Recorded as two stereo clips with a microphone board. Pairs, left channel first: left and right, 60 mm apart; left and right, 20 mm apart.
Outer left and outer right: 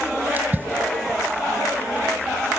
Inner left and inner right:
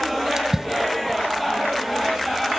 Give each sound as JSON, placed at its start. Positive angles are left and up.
{"t": 0.4, "sound": "a splash", "side_deg": -30, "distance_m": 1.3}